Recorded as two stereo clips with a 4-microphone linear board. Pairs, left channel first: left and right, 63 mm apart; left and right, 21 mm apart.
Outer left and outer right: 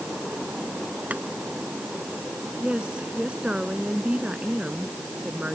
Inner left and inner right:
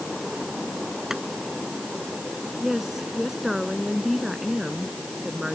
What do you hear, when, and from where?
1.1 s boiling: 25° right (ahead or behind)
2.6 s a woman speaking: 15° right (ahead or behind)